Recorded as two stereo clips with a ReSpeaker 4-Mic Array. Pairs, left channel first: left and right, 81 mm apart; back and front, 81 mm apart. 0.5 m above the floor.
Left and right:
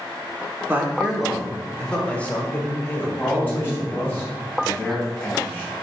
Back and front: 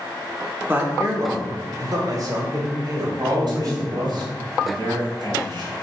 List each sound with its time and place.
0.7 s a man speaking: 45° right, 1.2 m; by 4.2 s 35° left, 3 m
3.2 s a man speaking: 20° left, 3 m